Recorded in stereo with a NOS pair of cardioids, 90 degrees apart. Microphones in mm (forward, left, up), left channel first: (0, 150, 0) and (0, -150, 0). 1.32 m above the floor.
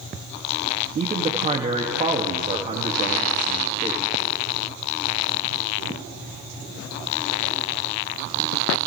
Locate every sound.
0.9 s a man speaking: 20° right, 2.5 m